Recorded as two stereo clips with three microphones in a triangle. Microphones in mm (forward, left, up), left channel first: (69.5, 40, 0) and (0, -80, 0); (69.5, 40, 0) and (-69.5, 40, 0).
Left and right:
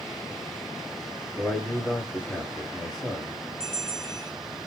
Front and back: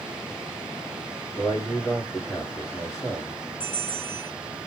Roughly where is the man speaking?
Ahead right.